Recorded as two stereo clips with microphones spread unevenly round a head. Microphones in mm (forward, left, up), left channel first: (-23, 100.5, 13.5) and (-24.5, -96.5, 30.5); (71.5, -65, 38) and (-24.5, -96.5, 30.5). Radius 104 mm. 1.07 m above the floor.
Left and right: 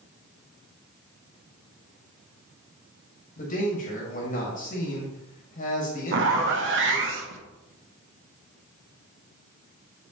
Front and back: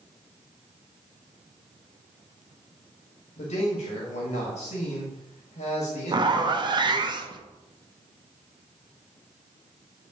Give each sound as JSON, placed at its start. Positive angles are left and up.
{"t": 3.4, "sound": "a man speaking", "azimuth_deg": 35, "distance_m": 1.6}
{"t": 6.1, "sound": "a zipper", "azimuth_deg": -115, "distance_m": 0.9}